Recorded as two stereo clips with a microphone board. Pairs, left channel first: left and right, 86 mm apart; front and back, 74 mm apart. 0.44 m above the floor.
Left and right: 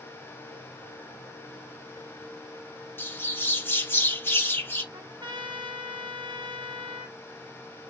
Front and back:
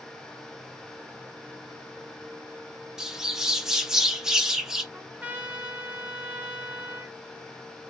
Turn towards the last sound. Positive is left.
turn(degrees=-110)